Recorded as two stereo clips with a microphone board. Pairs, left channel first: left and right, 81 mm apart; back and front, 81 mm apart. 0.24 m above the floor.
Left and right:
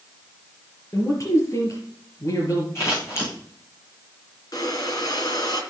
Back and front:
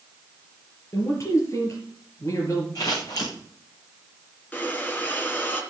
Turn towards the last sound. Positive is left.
turn(degrees=115)